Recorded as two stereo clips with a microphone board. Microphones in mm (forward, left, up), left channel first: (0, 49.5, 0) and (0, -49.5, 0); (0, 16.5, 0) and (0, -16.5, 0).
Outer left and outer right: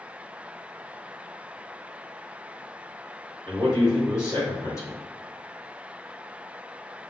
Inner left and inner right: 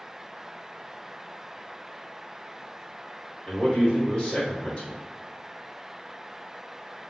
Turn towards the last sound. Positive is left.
turn(degrees=35)  # may be behind; listen again after turning